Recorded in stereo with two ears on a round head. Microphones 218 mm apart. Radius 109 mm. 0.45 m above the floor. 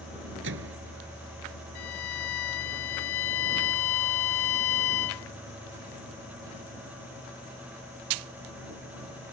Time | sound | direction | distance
0.4 | a microwave | 50° right (ahead or behind) | ?
1.8 | a violin | 60° left (ahead or behind) | ?